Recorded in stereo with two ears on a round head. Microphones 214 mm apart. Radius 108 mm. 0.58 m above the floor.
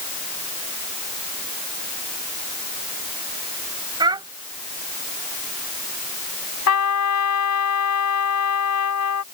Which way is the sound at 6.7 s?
80° left.